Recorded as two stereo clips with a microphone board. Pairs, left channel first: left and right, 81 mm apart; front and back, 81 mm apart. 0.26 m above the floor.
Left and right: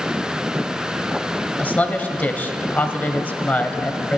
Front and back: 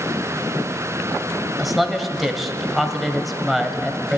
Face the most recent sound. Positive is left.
turn(degrees=95)